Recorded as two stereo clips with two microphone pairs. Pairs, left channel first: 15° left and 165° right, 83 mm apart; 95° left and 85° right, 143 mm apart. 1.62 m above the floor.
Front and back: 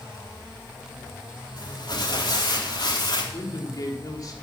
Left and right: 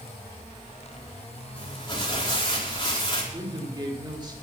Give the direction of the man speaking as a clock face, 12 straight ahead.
1 o'clock.